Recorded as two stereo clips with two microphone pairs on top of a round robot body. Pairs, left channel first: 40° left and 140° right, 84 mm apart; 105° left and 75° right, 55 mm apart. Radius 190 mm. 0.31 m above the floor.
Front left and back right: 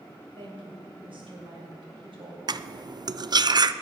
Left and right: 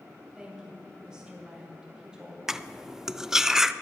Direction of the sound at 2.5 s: 150° right.